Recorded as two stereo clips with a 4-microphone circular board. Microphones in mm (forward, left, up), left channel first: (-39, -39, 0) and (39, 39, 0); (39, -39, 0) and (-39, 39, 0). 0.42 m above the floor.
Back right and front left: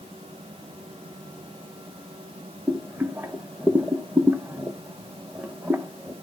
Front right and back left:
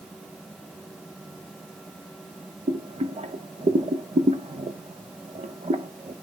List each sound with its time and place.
2.7 s boiling: 120° left, 0.8 m